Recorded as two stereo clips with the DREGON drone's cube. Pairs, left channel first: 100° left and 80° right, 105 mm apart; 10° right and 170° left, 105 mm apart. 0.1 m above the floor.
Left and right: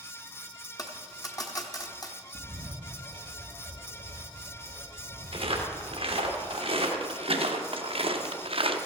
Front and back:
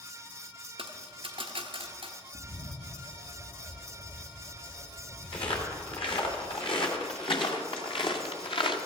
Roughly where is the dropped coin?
Behind left.